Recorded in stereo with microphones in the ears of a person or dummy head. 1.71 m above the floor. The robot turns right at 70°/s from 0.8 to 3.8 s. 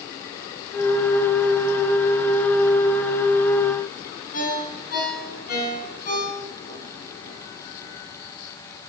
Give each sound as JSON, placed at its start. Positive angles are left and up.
{"t": 4.3, "sound": "a ringtone", "side_deg": 45, "distance_m": 8.5}